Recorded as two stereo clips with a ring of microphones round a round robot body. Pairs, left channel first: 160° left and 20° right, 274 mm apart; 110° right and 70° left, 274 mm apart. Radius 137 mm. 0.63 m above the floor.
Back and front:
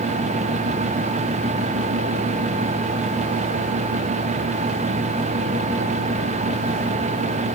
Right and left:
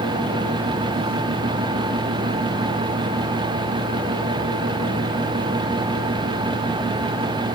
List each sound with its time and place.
Only background noise.